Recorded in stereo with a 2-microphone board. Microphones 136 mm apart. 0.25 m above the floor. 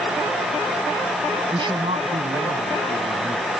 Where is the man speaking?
35° right (ahead or behind); by 3.5 s 70° right (ahead or behind).